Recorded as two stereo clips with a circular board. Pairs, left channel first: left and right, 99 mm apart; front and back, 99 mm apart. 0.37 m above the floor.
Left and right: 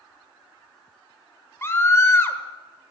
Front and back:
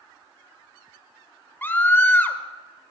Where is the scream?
50° left, 1.3 m.